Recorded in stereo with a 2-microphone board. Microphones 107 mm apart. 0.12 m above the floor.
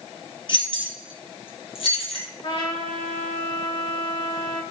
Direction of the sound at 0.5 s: 45° left (ahead or behind).